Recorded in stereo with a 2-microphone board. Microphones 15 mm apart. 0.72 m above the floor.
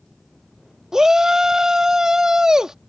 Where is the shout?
50° right (ahead or behind).